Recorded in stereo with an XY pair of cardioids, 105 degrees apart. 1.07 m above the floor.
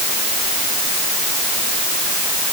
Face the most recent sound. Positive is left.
No sound to turn to.